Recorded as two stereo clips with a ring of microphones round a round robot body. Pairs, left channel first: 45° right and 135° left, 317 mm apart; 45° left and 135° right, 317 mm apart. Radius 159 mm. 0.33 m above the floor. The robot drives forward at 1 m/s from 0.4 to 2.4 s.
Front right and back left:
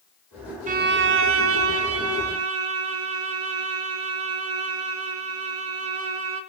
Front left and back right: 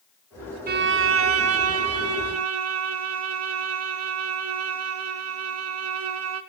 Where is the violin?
175° right, 0.6 m; by 6.4 s straight behind, 2 m.